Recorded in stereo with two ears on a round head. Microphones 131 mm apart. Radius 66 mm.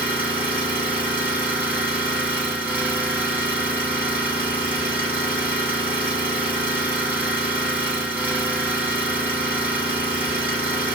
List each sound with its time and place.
0.0 s an engine running: 10° right (ahead or behind), 1.7 m